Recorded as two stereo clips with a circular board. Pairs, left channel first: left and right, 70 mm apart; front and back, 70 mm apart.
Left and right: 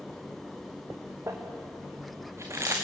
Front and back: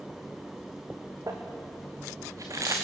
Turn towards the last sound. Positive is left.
turn(degrees=-140)